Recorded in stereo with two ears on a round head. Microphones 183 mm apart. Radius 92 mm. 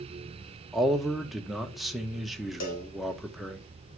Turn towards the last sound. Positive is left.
turn(degrees=65)  # may be behind; listen again after turning